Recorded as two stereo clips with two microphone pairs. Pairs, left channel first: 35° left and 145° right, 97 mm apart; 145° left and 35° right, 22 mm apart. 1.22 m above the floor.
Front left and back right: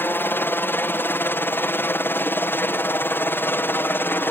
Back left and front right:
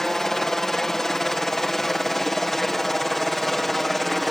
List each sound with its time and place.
0.0 s a helicopter: 90° left; by 4.3 s 75° left